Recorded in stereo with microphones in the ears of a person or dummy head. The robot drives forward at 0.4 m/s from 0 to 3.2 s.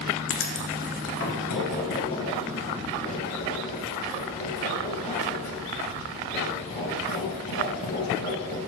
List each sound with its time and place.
0.3 s writing: 60° left (ahead or behind), 1.0 m; by 8.6 s 30° left (ahead or behind), 1.6 m